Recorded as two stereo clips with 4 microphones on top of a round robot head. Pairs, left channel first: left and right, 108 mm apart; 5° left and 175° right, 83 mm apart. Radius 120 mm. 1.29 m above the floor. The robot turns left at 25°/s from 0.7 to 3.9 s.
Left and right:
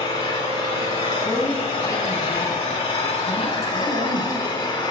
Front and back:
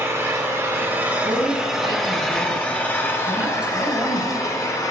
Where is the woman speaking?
165° left, 5.5 m; by 4.3 s 100° left, 5.5 m.